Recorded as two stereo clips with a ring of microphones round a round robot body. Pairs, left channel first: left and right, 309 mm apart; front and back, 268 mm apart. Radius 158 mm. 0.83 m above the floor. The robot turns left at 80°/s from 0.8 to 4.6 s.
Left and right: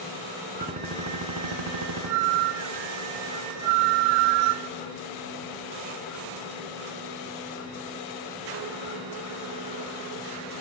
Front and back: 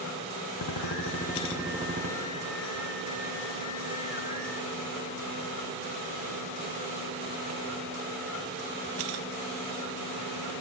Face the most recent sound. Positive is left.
turn(degrees=30)